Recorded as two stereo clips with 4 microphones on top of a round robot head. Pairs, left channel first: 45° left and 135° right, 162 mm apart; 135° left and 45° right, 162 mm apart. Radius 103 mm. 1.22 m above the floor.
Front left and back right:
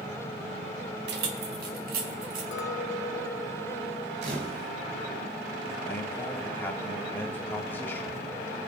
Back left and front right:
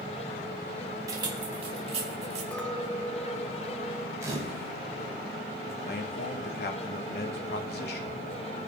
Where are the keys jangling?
115° right, 1.7 m; by 2.4 s 100° right, 3.5 m.